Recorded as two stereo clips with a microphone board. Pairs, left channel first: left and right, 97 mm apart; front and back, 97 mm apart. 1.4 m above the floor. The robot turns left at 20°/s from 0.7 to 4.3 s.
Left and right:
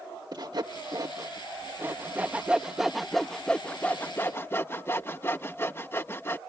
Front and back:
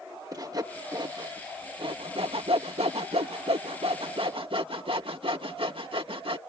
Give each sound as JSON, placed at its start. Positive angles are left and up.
{"t": 0.3, "sound": "sawing", "azimuth_deg": -135}